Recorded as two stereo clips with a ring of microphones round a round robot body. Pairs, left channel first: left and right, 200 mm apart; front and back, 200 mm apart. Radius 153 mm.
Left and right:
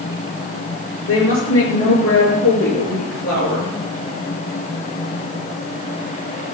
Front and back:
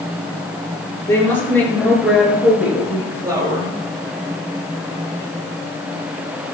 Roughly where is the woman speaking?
Left.